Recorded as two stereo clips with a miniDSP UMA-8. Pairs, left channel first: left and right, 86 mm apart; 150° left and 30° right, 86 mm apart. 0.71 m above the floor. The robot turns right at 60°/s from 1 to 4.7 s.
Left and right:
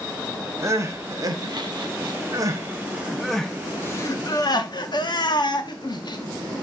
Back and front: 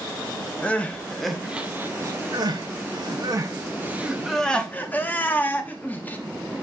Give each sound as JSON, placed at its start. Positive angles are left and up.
{"t": 0.6, "sound": "crying", "azimuth_deg": -140, "distance_m": 0.9}